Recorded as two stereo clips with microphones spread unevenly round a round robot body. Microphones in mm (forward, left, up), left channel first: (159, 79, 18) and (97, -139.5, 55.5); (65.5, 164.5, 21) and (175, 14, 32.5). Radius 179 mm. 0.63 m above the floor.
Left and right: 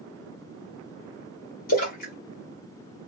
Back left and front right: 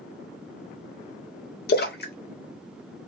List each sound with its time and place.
1.7 s a splash: 115° left, 1.0 m